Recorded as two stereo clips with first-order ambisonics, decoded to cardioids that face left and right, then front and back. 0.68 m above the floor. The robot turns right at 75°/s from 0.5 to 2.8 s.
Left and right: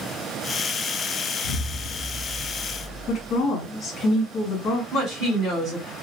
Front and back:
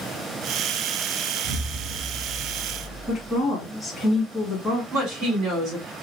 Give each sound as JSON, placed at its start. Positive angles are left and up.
{"t": 1.4, "sound": "an explosion", "azimuth_deg": 110, "distance_m": 0.6}
{"t": 3.1, "sound": "a woman speaking", "azimuth_deg": 90, "distance_m": 1.1}
{"t": 4.9, "sound": "a woman speaking", "azimuth_deg": -145, "distance_m": 2.0}